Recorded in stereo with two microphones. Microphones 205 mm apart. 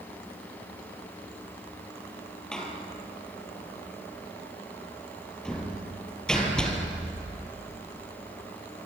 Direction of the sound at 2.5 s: 5° left (ahead or behind).